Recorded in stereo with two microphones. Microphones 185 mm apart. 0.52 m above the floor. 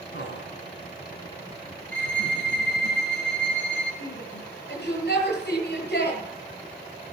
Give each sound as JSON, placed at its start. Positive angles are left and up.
{"t": 0.1, "sound": "laughter", "side_deg": 75, "distance_m": 5.5}
{"t": 1.9, "sound": "a violin", "side_deg": 85, "distance_m": 10.0}
{"t": 4.0, "sound": "a shout", "side_deg": 65, "distance_m": 10.0}